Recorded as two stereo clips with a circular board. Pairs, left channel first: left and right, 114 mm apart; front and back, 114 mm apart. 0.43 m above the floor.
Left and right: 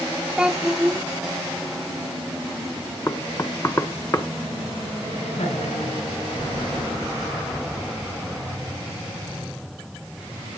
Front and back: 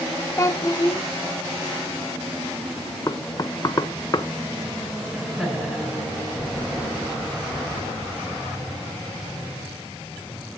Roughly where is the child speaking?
Ahead.